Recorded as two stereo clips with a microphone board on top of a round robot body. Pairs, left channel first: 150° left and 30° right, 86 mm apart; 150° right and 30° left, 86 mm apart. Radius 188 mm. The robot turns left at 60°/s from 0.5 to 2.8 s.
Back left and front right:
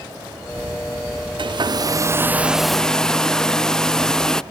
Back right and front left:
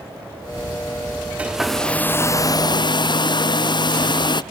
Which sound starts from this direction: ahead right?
A hair dryer, at 1.4 s.